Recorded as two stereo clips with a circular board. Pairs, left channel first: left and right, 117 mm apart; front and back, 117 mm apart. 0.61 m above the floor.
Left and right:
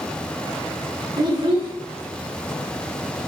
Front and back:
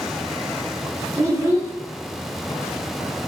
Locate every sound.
1.2 s a child speaking: 125° right, 0.6 m